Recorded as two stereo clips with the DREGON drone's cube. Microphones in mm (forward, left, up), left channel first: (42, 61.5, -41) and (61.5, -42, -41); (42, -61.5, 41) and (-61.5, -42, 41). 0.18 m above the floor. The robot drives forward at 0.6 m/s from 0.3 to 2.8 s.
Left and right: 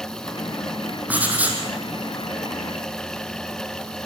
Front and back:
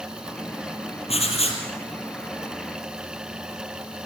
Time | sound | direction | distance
1.1 | writing | 5° right | 5 m